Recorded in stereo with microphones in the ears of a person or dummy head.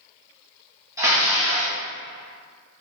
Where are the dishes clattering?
15° right (ahead or behind), 1.1 m.